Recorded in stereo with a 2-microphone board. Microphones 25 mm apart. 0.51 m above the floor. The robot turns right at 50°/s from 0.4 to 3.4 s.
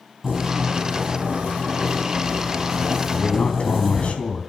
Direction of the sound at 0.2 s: 155° right.